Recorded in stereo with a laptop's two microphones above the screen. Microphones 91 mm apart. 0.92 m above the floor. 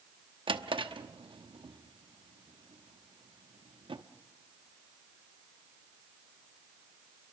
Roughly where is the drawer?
Right.